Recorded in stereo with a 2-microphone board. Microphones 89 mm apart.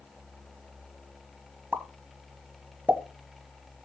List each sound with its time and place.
1.7 s a pop: 20° right (ahead or behind), 1.2 m